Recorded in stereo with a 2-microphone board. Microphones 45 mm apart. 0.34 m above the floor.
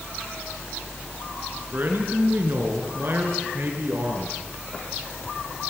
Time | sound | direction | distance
1.7 | a man speaking | 45° right (ahead or behind) | 5 m